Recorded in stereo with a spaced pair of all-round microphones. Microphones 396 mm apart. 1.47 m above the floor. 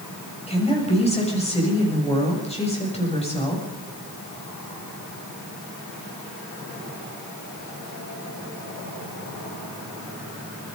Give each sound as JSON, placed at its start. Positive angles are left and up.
{"t": 0.5, "sound": "a woman speaking", "side_deg": 15, "distance_m": 7.5}